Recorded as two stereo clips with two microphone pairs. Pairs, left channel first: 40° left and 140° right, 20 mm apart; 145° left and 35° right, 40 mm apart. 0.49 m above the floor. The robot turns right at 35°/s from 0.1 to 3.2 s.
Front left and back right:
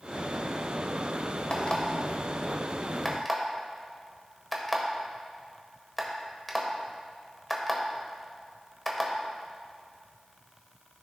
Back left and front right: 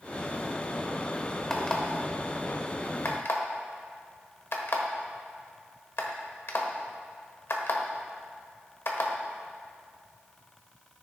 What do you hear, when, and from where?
1.5 s an alarm clock: 70° left, 1.1 m; by 9.1 s 130° left, 1.1 m